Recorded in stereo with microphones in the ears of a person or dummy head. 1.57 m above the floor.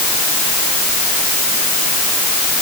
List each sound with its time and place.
Only background noise.